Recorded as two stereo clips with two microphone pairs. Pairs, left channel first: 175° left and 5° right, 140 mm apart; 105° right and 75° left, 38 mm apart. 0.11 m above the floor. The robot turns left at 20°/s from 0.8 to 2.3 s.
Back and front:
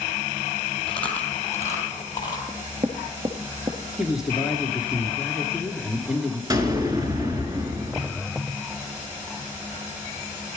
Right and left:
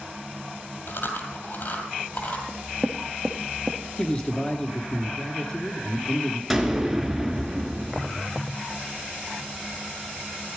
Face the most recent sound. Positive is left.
turn(degrees=-10)